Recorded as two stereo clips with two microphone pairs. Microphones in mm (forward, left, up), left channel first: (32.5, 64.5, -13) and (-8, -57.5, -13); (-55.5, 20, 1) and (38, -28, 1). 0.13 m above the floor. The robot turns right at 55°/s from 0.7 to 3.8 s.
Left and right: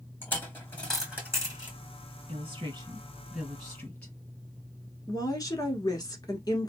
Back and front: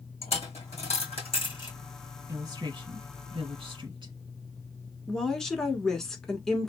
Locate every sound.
0.2 s a dropped coin: 145° left, 2 m; by 1.8 s 155° right, 2 m
2.3 s a woman speaking: 85° right, 2.5 m; by 4.1 s 5° right, 2.5 m
5.1 s a woman speaking: 75° left, 1.2 m